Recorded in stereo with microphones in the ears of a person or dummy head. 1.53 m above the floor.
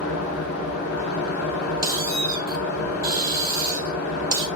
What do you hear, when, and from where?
0.0 s an engine running: 60° left (ahead or behind), 2.5 m
1.8 s a squeak: 20° right (ahead or behind), 0.8 m